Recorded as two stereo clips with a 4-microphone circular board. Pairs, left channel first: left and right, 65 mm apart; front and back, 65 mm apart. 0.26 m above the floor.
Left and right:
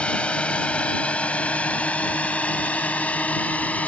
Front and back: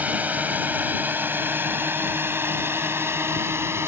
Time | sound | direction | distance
0.0 | a drone | 145° left | ?